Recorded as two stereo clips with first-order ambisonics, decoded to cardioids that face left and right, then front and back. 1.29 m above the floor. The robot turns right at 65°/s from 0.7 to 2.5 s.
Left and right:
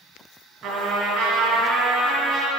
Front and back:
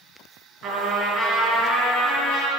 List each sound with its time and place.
0.6 s a trumpet: 140° right, 2.5 m; by 2.5 s 20° right, 2.5 m